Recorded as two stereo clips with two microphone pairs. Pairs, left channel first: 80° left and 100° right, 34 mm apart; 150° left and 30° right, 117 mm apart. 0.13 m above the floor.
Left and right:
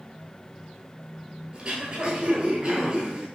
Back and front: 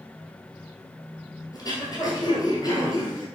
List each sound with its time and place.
1.5 s throat clearing: 160° right, 1.1 m